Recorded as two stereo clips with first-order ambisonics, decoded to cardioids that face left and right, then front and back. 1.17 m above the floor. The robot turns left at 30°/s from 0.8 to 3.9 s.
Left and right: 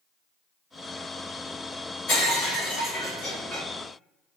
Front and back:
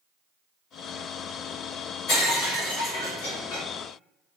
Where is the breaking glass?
45° left, 1.4 m; by 3.6 s straight ahead, 1.4 m.